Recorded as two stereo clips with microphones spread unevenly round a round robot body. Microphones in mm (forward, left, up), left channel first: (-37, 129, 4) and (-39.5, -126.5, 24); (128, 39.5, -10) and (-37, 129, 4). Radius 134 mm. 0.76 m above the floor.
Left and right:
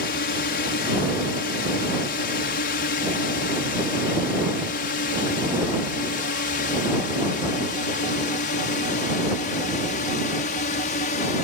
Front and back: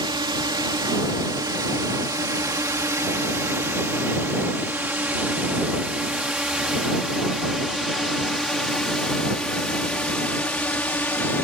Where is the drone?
100° left; by 11.4 s 45° left.